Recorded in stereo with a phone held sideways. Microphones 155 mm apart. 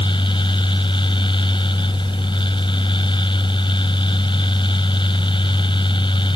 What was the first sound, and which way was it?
A fan, 35° left (ahead or behind).